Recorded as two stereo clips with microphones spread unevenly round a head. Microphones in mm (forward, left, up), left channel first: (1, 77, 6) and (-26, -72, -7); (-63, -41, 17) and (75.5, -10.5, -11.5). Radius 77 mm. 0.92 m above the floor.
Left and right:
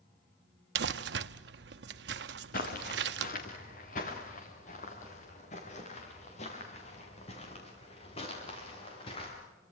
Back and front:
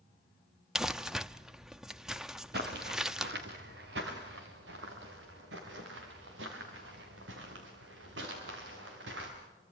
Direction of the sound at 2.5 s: 45° left.